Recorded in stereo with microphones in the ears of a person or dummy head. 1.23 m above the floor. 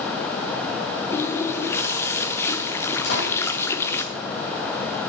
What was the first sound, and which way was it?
A running tap, 15° left (ahead or behind).